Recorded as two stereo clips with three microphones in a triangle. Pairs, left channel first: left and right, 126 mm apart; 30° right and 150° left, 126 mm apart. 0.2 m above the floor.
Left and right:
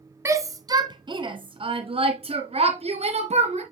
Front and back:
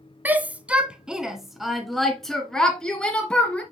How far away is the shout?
About 1.5 m.